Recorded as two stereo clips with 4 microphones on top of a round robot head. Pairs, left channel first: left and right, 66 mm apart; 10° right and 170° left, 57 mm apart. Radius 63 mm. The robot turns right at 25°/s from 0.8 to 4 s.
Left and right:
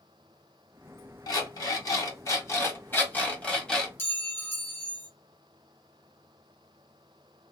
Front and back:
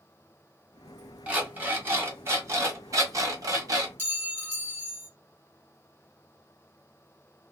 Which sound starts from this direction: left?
An alarm clock, at 1.3 s.